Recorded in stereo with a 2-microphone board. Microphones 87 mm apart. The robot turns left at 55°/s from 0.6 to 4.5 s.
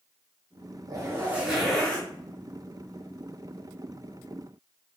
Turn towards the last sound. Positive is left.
turn(degrees=25)